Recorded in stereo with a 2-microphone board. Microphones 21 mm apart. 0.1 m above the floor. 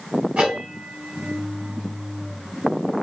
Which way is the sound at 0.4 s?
80° right.